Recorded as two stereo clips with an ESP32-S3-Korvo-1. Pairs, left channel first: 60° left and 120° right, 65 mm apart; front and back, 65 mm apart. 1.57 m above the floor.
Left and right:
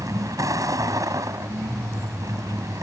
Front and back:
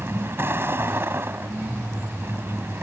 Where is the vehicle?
130° right.